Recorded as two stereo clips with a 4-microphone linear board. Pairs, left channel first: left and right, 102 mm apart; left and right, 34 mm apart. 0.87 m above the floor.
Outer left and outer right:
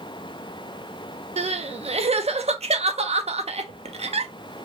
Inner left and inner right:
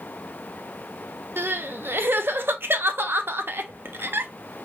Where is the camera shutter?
I don't hear a camera shutter.